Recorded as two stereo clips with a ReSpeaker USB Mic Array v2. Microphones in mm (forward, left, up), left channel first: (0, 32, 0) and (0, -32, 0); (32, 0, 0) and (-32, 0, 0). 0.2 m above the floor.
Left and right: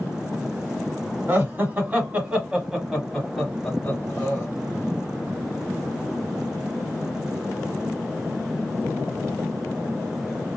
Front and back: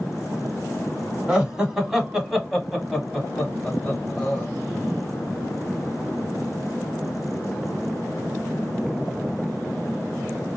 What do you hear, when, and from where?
1.3 s laughter: 110° right, 1.6 m; by 4.5 s 55° left, 1.5 m